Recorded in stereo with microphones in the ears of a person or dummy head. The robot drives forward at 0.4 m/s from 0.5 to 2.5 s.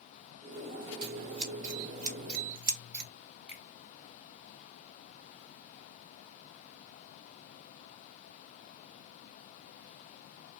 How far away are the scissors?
About 1.2 m.